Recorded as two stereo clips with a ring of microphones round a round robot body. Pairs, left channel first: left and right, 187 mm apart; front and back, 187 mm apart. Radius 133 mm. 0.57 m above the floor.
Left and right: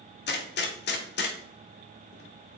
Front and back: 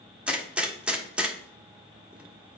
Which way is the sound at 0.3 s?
95° left.